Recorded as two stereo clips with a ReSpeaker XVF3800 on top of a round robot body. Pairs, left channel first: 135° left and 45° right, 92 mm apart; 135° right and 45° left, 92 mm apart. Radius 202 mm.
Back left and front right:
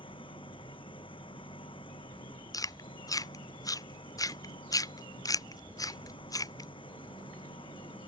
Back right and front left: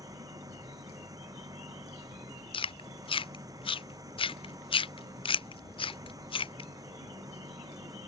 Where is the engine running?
100° left.